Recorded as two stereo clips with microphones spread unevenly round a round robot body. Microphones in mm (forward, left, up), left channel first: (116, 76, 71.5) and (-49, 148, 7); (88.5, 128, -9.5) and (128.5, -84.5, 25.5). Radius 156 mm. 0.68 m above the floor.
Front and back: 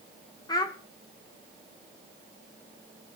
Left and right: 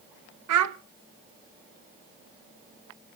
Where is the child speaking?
105° right, 0.8 m.